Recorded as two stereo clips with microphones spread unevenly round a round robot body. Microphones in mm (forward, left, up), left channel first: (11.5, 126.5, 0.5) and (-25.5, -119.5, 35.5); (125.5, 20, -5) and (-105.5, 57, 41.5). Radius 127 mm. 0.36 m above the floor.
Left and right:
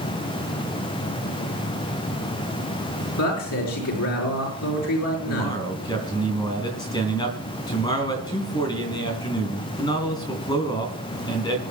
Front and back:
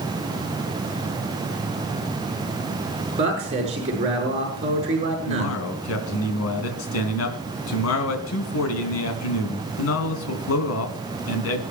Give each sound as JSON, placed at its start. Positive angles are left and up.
{"t": 3.2, "sound": "a man speaking", "azimuth_deg": 105, "distance_m": 6.0}
{"t": 5.3, "sound": "a man speaking", "azimuth_deg": 10, "distance_m": 3.0}